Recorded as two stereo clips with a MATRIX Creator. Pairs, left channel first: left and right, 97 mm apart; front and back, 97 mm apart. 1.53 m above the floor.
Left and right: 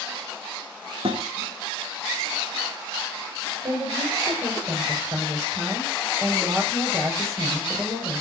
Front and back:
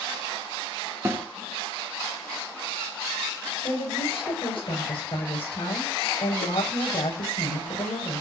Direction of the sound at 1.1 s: 115° right.